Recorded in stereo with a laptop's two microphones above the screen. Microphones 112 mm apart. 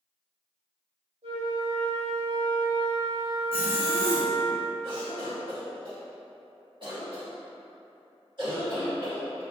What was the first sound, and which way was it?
A flute, 75° right (ahead or behind).